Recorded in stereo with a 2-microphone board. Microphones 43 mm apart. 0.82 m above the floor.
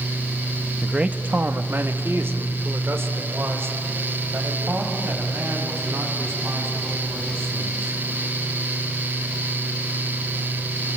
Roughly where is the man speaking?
Centre.